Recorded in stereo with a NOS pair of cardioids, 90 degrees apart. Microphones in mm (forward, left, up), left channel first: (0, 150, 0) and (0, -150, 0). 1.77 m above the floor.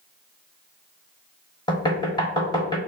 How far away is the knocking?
About 1.1 m.